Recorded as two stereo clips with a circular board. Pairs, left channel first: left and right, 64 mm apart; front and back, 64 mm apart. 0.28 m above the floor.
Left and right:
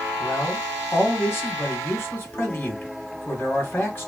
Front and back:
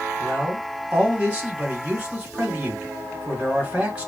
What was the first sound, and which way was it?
A man speaking, 120° left.